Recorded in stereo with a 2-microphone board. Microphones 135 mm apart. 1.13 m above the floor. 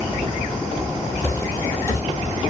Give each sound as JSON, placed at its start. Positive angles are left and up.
{"t": 1.2, "sound": "footsteps", "side_deg": 20, "distance_m": 1.3}